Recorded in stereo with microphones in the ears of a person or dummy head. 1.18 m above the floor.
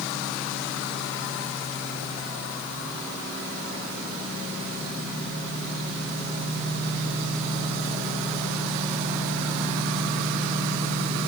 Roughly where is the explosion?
No explosion in this recording.